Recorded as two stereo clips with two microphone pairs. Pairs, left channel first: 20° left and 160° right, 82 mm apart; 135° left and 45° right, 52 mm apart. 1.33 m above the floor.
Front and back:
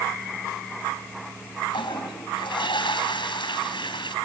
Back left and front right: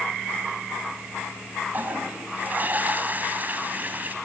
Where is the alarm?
I don't hear an alarm.